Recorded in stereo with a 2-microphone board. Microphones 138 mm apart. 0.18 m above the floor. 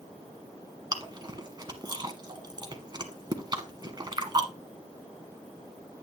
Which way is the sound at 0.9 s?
30° right (ahead or behind).